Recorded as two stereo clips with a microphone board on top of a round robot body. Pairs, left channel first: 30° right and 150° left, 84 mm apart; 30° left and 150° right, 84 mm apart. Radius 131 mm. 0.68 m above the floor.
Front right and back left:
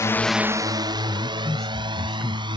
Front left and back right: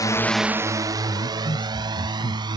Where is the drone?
5° left; by 2.6 s 175° left.